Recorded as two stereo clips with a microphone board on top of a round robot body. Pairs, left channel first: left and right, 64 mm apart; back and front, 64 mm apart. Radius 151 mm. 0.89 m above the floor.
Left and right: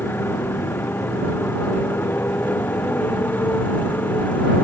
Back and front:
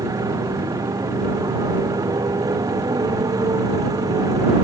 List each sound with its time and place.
0.0 s a motorcycle: 30° left; by 4.7 s 25° left